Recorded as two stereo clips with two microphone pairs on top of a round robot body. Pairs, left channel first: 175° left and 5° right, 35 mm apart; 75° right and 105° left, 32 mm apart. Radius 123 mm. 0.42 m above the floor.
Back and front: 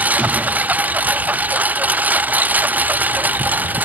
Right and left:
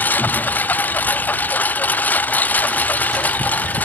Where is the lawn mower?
45° right; by 3.9 s 40° right.